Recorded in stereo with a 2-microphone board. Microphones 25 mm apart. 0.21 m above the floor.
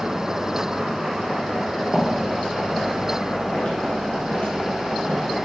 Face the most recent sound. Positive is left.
turn(degrees=60)  # may be behind; listen again after turning